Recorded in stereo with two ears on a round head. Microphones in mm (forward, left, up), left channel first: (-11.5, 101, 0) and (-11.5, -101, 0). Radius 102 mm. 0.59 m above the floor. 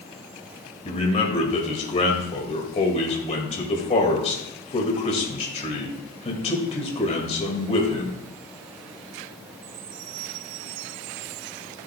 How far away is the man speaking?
About 2 m.